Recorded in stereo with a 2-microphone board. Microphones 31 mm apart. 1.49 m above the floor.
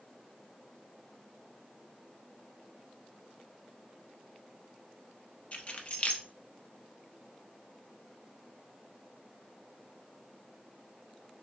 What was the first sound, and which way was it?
Keys jangling, 40° left (ahead or behind).